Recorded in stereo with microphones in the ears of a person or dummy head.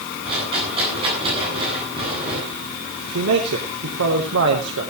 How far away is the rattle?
About 9 m.